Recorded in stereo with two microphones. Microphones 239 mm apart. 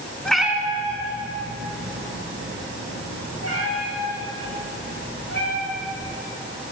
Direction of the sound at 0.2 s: 5° left (ahead or behind).